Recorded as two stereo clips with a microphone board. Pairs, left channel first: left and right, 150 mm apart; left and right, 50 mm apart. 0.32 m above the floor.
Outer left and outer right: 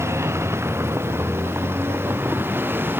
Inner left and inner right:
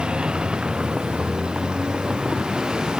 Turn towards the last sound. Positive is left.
turn(degrees=-15)  # may be behind; listen again after turning